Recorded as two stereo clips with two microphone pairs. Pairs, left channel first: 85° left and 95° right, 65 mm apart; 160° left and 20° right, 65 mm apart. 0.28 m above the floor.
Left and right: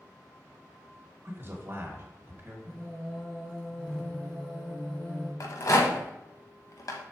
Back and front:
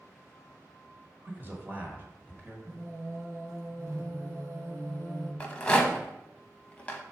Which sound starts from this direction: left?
A rattle, at 5.4 s.